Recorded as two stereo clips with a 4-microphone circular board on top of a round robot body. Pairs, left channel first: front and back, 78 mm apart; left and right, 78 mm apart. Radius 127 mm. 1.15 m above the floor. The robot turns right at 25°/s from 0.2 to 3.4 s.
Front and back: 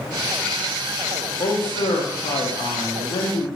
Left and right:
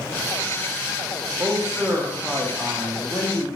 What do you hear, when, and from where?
1.4 s a man speaking: 25° right, 0.5 m; by 3.5 s 25° left, 0.5 m